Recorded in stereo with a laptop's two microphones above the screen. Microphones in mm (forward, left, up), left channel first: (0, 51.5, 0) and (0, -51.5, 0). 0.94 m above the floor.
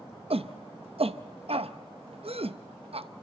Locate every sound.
0.3 s a shout: 70° right (ahead or behind), 0.6 m